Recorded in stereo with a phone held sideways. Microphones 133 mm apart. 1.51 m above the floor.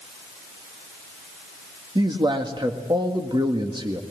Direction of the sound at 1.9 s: 35° right (ahead or behind).